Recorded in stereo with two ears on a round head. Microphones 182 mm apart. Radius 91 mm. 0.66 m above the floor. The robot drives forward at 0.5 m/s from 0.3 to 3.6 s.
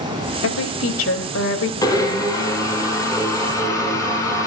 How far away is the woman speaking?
About 3 m.